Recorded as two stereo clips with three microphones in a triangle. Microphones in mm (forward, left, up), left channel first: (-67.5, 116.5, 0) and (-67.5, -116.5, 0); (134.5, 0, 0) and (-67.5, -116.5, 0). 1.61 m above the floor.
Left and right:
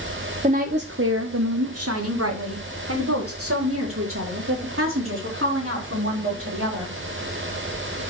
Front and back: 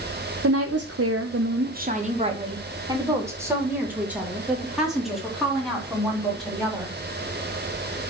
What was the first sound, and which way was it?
A woman speaking, 155° right.